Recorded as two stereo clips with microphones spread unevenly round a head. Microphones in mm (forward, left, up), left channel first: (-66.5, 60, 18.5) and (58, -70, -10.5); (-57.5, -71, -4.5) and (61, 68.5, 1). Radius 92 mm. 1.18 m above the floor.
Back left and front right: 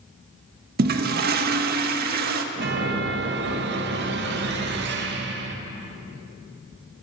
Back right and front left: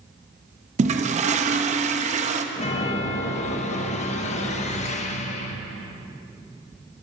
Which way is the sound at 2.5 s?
75° right.